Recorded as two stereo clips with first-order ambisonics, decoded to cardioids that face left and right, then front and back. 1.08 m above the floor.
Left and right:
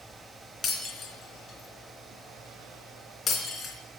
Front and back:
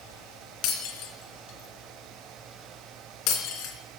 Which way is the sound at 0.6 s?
20° left.